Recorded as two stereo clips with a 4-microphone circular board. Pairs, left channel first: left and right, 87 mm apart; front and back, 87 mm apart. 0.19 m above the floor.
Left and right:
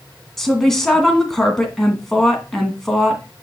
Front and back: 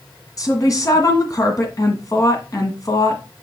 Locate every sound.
0.4 s a woman speaking: 5° left, 1.9 m